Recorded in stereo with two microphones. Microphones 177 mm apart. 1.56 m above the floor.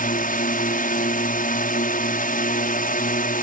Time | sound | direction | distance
0.0 | a drone | 50° left (ahead or behind) | ?